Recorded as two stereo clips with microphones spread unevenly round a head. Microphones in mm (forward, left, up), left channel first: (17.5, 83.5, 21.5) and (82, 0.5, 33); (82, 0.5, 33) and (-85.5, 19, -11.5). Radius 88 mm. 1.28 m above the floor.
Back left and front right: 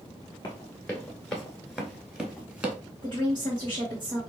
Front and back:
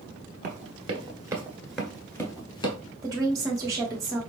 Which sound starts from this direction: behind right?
A woman speaking, at 3.0 s.